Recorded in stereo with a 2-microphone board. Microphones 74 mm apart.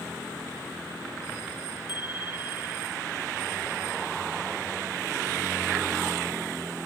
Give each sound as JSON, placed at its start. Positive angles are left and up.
{"t": 1.9, "sound": "a bicycle bell", "side_deg": 85}